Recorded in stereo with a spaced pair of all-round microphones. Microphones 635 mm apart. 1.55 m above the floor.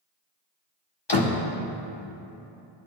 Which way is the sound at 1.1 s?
40° left (ahead or behind).